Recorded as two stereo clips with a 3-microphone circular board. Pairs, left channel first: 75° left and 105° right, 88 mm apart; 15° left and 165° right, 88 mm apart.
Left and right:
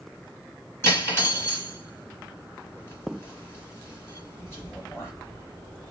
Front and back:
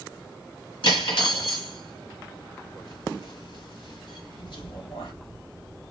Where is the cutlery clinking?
20° left, 1.2 m.